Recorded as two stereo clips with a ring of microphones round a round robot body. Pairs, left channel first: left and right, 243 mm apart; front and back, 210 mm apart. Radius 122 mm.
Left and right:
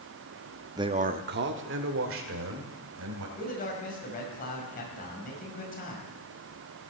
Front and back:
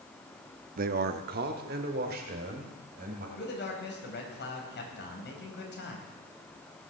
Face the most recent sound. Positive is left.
turn(degrees=35)